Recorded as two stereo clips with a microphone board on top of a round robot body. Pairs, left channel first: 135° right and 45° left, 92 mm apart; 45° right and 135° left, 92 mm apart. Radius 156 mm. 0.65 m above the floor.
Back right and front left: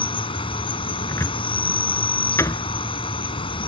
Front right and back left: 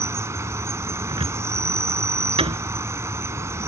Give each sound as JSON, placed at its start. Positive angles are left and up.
{"t": 0.0, "sound": "an insect", "azimuth_deg": -160}
{"t": 1.1, "sound": "a cupboard door", "azimuth_deg": 165}